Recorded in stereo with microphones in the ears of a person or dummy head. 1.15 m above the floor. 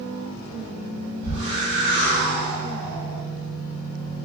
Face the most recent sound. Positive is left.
turn(degrees=45)  # may be behind; listen again after turning